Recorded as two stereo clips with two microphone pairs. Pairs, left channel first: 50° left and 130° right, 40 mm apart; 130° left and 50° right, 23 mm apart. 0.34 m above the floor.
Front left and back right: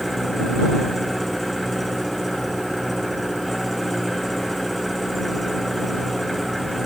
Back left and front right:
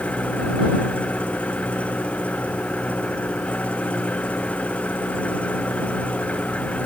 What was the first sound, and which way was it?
An engine running, 135° left.